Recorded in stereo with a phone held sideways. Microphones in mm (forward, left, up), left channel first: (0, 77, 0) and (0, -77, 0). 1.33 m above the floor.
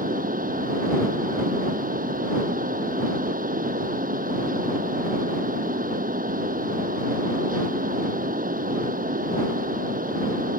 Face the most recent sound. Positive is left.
turn(degrees=-65)  # may be behind; listen again after turning